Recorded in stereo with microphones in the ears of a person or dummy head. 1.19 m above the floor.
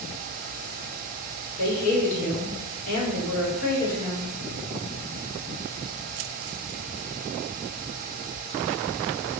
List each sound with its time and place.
1.6 s a woman speaking: 50° left (ahead or behind), 3.5 m